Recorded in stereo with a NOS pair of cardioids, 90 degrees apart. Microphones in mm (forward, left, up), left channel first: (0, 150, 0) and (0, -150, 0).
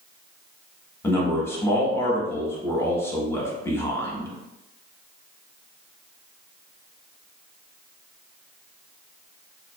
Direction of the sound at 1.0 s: 10° left.